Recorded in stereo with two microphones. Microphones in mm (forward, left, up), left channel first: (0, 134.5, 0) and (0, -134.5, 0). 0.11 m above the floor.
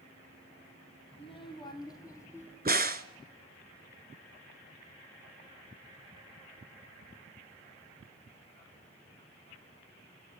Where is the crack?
35° right (ahead or behind), 0.8 m.